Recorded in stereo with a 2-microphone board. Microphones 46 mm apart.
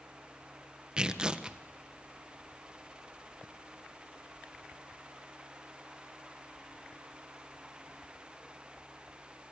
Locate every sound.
1.0 s tearing paper: 20° right (ahead or behind), 1.5 m